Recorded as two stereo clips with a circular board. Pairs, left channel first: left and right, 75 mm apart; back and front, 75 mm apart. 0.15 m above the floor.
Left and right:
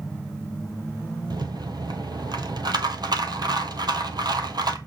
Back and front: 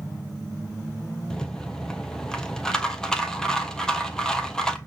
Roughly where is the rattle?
Right.